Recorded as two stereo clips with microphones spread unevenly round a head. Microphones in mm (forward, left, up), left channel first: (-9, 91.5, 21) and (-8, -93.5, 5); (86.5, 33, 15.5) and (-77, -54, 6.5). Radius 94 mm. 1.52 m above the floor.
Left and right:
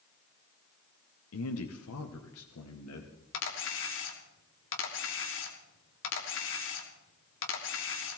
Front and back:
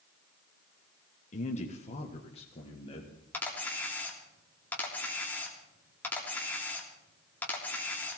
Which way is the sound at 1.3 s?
85° left.